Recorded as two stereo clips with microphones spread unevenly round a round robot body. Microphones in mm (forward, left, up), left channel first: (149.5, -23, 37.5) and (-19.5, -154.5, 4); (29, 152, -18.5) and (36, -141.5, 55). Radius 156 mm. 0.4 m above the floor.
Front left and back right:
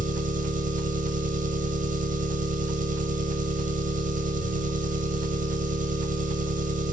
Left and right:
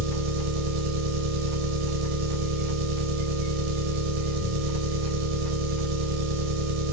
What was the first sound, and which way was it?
An engine running, 95° right.